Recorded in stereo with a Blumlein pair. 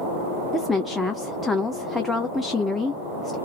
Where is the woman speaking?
5° left, 0.5 m.